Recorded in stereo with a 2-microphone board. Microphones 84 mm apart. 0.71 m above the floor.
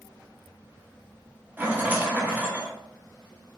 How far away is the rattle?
About 0.8 m.